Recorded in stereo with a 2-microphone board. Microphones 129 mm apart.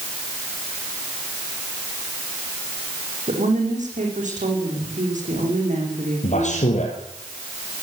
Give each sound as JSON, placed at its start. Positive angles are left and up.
{"t": 3.3, "sound": "a woman speaking", "side_deg": -75, "distance_m": 7.5}
{"t": 6.2, "sound": "a man speaking", "side_deg": 70, "distance_m": 3.5}